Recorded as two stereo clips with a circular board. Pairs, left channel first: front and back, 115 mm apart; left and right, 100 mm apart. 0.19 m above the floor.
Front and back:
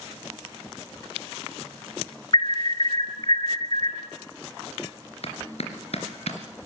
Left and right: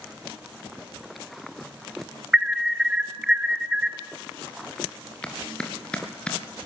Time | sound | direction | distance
2.3 | an alarm | 10° right | 1.0 m
5.2 | a clap | 10° left | 3 m